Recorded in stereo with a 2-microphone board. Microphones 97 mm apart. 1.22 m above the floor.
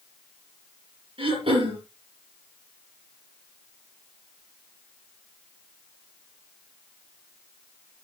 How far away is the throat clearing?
About 5 m.